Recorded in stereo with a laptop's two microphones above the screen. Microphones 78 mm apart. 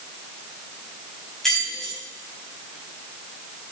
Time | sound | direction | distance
1.4 | keys jangling | 10° left (ahead or behind) | 4.5 m